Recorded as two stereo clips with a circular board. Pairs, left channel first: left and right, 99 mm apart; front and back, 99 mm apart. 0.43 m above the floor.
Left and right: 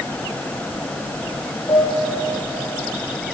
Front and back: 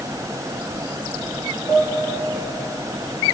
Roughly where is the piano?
Ahead left.